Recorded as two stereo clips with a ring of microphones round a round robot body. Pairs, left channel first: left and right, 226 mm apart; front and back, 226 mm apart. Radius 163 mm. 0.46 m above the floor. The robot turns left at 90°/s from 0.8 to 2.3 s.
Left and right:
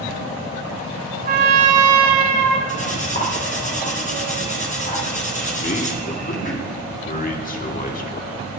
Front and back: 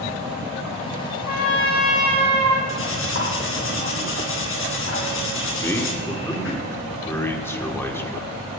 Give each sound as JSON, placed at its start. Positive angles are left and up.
{"t": 1.2, "sound": "a trumpet", "azimuth_deg": -35, "distance_m": 1.1}
{"t": 2.7, "sound": "cutlery clinking", "azimuth_deg": 30, "distance_m": 2.5}
{"t": 5.6, "sound": "a man speaking", "azimuth_deg": 75, "distance_m": 1.6}